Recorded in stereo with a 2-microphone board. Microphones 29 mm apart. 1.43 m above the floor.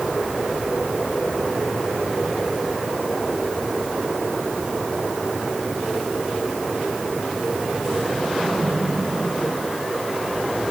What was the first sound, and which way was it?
Only background noise.